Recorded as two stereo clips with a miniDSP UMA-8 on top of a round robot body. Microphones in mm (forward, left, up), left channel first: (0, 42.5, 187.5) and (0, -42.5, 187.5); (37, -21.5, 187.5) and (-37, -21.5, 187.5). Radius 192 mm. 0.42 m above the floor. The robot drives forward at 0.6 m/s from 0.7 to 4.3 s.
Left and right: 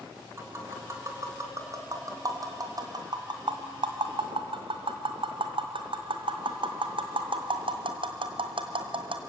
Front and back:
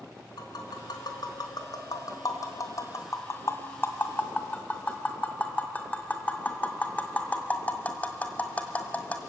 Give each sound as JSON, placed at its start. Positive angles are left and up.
{"t": 0.4, "sound": "tapping", "azimuth_deg": -30, "distance_m": 3.0}